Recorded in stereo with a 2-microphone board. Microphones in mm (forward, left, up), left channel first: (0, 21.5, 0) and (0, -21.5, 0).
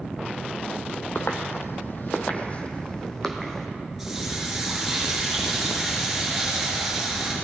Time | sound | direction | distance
1.1 | footsteps | 70° left (ahead or behind) | 1.0 m
4.0 | a running tap | 5° right (ahead or behind) | 4 m